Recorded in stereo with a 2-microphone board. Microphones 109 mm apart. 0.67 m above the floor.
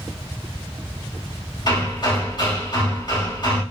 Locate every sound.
1.7 s hammering: 40° left (ahead or behind), 2.5 m